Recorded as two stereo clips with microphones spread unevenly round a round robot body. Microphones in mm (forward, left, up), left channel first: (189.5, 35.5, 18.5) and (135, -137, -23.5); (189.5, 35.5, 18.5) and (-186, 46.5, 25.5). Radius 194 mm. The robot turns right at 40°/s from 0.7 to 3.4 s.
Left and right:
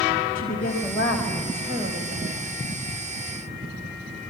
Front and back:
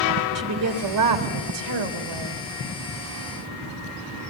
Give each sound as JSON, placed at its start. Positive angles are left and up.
{"t": 0.3, "sound": "a woman speaking", "azimuth_deg": 140, "distance_m": 3.0}